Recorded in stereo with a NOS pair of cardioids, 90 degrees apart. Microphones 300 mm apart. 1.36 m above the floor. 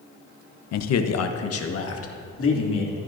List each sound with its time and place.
0.7 s a man speaking: 65° left, 0.8 m; by 3.0 s 45° left, 3 m